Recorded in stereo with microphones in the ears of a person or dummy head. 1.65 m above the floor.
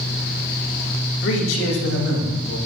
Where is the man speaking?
65° left (ahead or behind), 2 m; by 2.6 s 80° left, 3 m.